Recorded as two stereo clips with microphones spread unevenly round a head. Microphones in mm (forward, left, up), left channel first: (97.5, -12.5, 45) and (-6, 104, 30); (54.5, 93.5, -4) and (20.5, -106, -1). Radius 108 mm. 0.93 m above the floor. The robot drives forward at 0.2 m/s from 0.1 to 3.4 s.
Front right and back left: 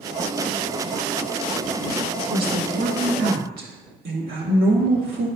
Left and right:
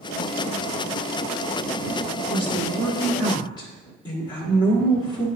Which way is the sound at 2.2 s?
145° left.